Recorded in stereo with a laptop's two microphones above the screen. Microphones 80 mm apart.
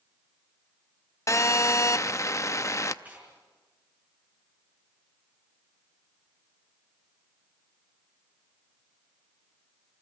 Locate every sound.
1.3 s a phone buzzing: 40° left (ahead or behind), 0.6 m
3.0 s tearing paper: 20° right (ahead or behind), 4.5 m